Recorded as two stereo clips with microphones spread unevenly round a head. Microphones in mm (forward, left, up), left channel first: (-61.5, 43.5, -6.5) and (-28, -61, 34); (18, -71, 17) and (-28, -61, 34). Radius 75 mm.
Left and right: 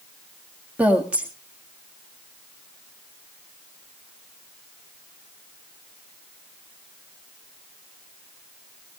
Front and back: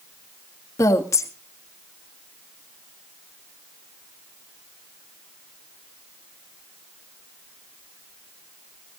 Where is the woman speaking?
10° left, 1.7 m.